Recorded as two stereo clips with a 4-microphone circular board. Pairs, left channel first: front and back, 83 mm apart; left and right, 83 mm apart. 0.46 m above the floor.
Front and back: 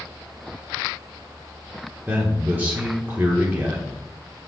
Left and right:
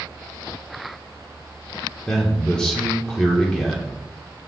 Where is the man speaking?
155° left, 1.1 m.